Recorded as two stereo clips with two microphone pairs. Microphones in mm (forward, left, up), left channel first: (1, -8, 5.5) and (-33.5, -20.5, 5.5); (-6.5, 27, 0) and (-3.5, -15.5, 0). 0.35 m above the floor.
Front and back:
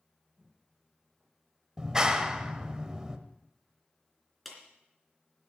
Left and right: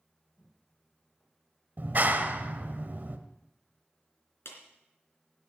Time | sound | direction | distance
0.4 | footsteps | 135° left | 8.5 m
1.8 | a clap | 95° right | 1.2 m
4.5 | a clap | 110° left | 3 m